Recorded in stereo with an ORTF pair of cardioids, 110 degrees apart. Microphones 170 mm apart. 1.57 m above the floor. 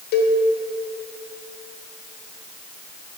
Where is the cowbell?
70° left, 1.1 m.